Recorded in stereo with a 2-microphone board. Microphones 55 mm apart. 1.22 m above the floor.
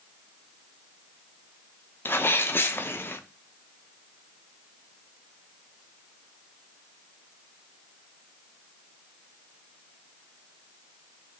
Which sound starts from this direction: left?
A sneeze, at 2.0 s.